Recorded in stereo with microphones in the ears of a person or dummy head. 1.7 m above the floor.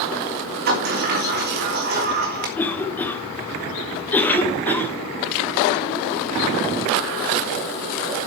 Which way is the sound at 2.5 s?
15° left (ahead or behind).